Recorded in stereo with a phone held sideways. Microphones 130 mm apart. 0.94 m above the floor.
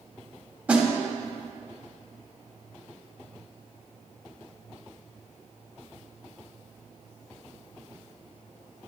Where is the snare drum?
10° right (ahead or behind), 1.6 m.